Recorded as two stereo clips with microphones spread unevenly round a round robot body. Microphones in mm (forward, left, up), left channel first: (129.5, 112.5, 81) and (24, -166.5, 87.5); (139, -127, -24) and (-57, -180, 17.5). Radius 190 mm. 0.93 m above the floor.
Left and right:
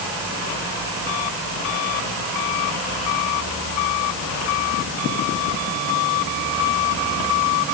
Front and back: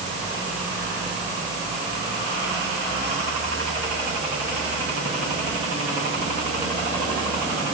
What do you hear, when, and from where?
Only background noise.